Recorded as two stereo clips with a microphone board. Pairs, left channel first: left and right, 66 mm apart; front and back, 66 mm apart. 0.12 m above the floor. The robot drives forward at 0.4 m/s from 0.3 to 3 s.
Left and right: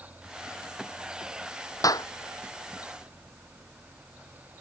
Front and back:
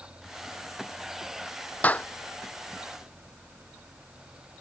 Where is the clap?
65° left.